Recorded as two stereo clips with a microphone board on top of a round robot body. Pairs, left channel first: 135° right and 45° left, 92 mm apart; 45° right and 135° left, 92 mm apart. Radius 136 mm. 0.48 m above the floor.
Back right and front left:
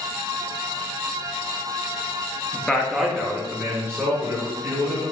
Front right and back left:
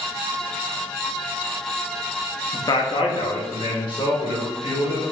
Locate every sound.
2.5 s a man speaking: 65° right, 0.8 m; by 5.0 s 15° right, 2.5 m